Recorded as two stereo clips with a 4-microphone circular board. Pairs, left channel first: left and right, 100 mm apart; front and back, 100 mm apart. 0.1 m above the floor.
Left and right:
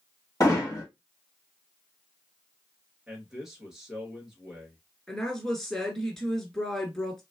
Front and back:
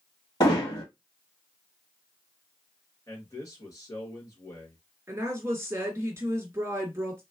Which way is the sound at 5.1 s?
170° left.